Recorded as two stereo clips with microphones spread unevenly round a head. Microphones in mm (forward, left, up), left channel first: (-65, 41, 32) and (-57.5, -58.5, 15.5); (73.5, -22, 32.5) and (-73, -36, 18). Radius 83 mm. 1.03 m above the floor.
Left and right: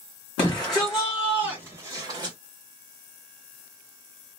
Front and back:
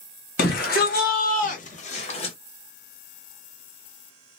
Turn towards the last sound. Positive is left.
turn(degrees=-45)